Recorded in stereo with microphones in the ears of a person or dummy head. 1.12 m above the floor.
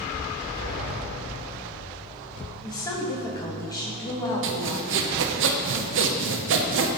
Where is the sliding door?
45° right (ahead or behind), 2 m.